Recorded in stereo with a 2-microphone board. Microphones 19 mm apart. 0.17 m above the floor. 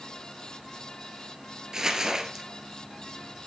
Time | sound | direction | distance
1.7 | crumpling | 35° right (ahead or behind) | 1.4 m